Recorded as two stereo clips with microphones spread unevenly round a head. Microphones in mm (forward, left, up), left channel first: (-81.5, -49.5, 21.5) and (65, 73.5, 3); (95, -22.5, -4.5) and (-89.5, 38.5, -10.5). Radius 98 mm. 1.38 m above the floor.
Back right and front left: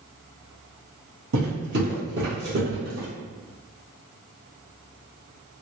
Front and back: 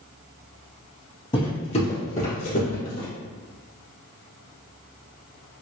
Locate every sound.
1.3 s footsteps: 40° left, 2.0 m; by 3.1 s 5° left, 2 m